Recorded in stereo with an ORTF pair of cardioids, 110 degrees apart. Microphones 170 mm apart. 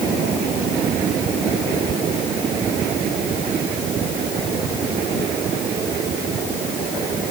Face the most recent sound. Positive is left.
No sound to turn to.